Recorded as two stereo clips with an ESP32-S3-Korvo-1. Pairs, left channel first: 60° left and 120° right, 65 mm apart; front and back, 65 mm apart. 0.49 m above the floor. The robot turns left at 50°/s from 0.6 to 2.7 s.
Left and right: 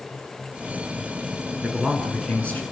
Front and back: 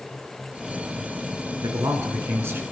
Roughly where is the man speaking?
Behind.